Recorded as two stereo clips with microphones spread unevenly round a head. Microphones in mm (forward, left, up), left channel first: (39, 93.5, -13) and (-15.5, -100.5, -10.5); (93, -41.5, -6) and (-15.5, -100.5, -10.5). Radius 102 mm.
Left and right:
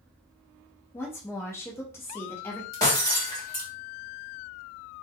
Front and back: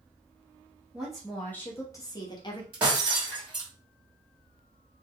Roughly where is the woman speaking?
Behind left.